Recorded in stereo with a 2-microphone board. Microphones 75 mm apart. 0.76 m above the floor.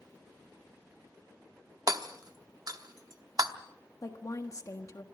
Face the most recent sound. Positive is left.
turn(degrees=45)  # may be behind; listen again after turning